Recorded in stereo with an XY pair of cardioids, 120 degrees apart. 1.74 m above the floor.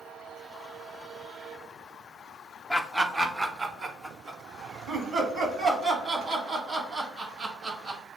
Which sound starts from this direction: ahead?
Laughter, at 2.7 s.